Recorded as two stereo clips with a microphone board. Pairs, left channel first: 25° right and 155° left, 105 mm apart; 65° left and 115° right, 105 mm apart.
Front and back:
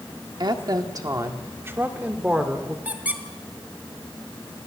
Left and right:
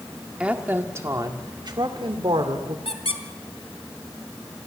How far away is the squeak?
About 1.6 m.